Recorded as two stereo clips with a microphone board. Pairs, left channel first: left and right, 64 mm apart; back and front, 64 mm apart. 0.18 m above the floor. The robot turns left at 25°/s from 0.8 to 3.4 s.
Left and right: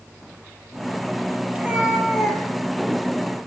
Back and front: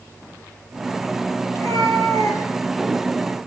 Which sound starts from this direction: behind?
A cat meowing, at 1.5 s.